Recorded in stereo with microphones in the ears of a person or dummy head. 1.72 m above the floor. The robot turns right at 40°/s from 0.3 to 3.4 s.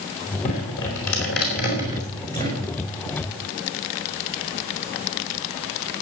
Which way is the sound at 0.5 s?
80° left.